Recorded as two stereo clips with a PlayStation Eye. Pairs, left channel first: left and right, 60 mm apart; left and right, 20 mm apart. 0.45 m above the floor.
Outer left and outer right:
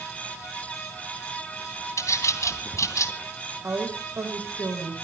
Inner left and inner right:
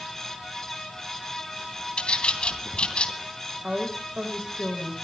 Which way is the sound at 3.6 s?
45° right (ahead or behind).